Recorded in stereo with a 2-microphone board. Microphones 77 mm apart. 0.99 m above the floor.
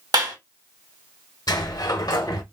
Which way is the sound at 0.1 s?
65° right (ahead or behind).